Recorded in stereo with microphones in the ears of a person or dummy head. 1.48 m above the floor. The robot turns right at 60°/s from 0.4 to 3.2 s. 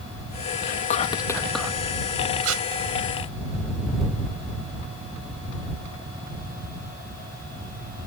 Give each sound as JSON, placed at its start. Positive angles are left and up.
{"t": 0.6, "sound": "whispering", "azimuth_deg": 120}
{"t": 2.4, "sound": "tape being pulled", "side_deg": -85}